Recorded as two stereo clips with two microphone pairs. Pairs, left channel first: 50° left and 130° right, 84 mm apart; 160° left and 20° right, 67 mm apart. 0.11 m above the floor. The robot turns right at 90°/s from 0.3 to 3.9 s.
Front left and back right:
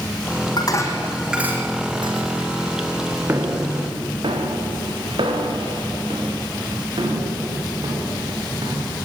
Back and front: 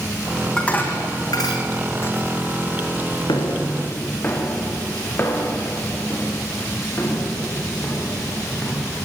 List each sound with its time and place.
0.6 s dishes clattering: 75° left, 4.5 m; by 3.2 s 45° right, 4.5 m
3.3 s footsteps: 165° left, 4 m; by 8.9 s 150° right, 8.5 m